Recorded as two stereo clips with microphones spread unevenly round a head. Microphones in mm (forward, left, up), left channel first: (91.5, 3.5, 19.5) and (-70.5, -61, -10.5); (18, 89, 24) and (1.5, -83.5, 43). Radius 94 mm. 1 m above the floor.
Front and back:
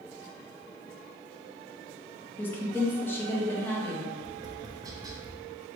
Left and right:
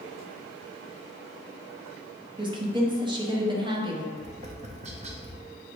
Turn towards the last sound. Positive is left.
turn(degrees=-125)